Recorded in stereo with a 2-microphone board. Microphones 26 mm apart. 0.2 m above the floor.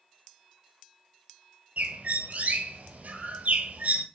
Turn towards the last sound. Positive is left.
turn(degrees=-65)  # may be behind; listen again after turning